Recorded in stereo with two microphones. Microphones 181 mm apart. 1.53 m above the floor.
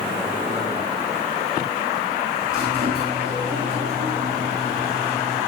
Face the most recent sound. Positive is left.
turn(degrees=-60)  # may be behind; listen again after turning